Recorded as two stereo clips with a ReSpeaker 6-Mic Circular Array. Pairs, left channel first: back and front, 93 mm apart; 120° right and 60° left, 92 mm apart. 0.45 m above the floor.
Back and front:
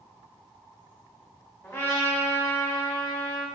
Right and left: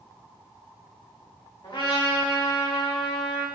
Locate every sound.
1.6 s a trumpet: 120° right, 1.0 m